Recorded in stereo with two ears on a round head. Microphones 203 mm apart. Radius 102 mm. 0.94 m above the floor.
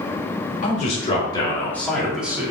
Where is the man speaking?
35° left (ahead or behind), 2.5 m; by 2.5 s 10° right (ahead or behind), 2.5 m.